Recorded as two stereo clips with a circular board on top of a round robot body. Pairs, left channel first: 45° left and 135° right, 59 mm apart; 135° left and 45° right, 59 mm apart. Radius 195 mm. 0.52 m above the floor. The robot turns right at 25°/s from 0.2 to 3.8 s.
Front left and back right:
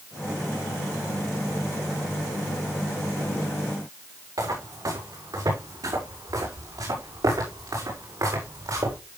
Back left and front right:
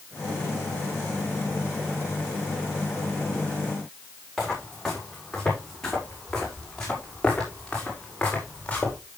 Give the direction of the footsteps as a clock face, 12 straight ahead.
5 o'clock.